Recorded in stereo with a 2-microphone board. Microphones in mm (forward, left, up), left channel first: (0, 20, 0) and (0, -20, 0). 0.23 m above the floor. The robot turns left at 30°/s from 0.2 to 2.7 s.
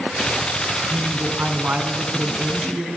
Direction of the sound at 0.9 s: 95° right.